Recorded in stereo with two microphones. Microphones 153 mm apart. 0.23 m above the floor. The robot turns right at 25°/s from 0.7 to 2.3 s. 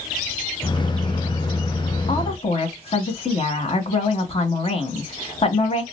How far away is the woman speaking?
About 1.5 m.